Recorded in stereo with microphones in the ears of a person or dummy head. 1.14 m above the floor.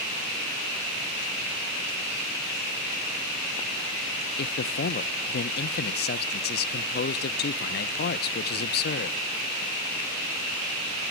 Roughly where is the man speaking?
Left.